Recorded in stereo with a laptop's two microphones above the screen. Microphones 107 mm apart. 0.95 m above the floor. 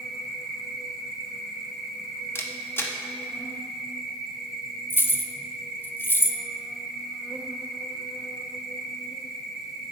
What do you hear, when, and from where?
0.0 s an insect: 5° right (ahead or behind), 1.1 m
2.4 s a camera shutter: 20° left (ahead or behind), 0.8 m
4.9 s keys jangling: 20° left (ahead or behind), 0.5 m